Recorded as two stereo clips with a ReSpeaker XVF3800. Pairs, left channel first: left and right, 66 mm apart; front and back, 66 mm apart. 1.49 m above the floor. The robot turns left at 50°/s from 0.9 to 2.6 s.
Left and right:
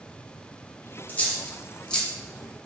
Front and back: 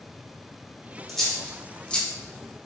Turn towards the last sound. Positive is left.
turn(degrees=0)